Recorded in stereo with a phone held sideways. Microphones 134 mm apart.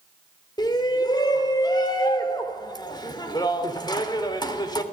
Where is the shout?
30° left (ahead or behind), 3 m.